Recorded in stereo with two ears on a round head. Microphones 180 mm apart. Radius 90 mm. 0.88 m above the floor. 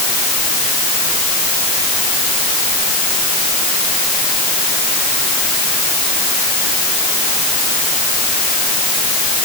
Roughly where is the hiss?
I don't hear a hiss.